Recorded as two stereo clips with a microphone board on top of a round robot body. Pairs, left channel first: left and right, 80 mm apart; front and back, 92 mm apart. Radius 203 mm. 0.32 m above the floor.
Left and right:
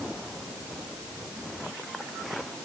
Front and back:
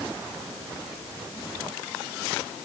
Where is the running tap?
No running tap in this recording.